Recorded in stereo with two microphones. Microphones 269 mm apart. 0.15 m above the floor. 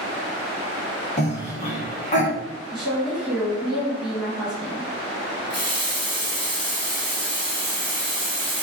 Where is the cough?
25° left (ahead or behind), 1.1 m.